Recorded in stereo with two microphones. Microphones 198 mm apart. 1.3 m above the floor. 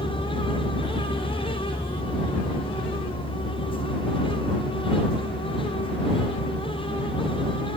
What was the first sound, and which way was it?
A vehicle, 15° left (ahead or behind).